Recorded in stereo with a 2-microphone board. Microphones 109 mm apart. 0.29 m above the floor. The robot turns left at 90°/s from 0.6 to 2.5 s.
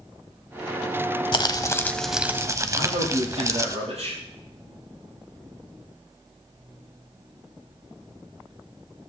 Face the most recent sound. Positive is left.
turn(degrees=-80)